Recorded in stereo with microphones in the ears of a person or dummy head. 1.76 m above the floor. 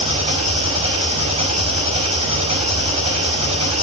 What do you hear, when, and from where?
0.0 s an engine running: 30° right (ahead or behind), 5.5 m